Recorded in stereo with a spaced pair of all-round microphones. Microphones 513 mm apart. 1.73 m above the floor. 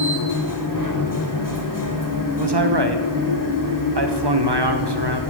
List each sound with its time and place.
0.0 s a machine running: 40° left (ahead or behind), 1.7 m
2.4 s a man speaking: 50° right (ahead or behind), 1.3 m